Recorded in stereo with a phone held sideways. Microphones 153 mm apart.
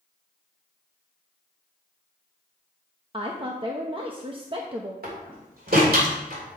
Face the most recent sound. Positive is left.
turn(degrees=-75)  # may be behind; listen again after turning